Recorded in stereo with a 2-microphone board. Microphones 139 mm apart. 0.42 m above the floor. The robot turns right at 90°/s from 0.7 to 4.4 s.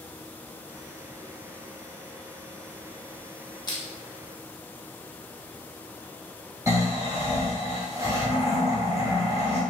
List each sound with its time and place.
3.7 s crushing: 30° left (ahead or behind), 0.7 m; by 3.8 s 25° left (ahead or behind), 0.7 m
6.7 s snoring: 20° right (ahead or behind), 1.6 m